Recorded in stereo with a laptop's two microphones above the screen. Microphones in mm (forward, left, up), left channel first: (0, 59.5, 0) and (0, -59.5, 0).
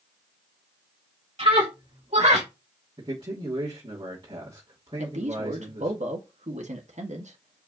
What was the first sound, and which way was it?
A scream, 60° right (ahead or behind).